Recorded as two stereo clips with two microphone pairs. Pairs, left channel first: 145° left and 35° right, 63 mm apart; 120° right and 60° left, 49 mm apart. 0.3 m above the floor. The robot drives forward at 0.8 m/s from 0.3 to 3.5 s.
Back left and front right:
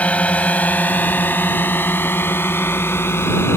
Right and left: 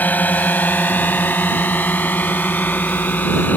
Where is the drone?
155° right; by 3.6 s 170° right.